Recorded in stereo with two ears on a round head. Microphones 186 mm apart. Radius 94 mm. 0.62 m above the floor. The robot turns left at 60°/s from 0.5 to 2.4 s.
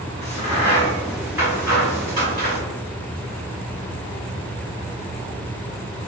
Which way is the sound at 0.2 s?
30° left (ahead or behind).